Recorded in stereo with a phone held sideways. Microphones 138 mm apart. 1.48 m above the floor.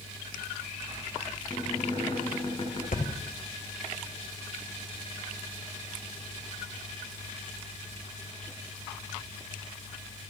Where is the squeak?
35° left (ahead or behind), 8.5 m.